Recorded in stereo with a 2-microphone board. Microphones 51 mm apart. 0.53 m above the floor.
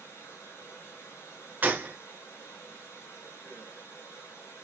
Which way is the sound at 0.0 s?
80° left.